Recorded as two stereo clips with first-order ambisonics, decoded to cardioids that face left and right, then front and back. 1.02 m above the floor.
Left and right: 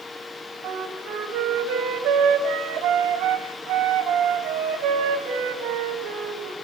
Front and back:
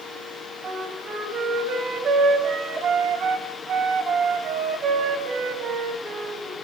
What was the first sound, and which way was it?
A flute, 125° right.